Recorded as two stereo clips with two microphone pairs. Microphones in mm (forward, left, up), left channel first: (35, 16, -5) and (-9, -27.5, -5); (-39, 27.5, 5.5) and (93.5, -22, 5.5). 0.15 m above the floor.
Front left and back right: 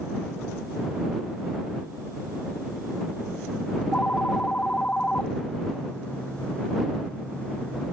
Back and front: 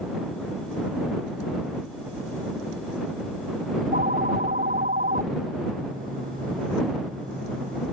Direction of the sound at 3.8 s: 25° right.